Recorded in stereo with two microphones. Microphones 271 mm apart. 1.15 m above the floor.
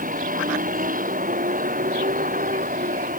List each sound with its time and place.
0.0 s a vehicle: 30° right (ahead or behind)